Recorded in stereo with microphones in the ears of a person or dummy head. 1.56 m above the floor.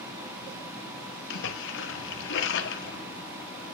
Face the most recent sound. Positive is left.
turn(degrees=70)  # may be behind; listen again after turning